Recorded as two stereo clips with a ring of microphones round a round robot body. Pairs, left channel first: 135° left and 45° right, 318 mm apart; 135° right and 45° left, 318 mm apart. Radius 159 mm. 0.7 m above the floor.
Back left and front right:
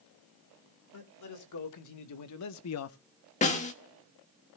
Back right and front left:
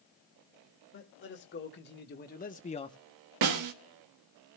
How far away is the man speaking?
About 2.0 m.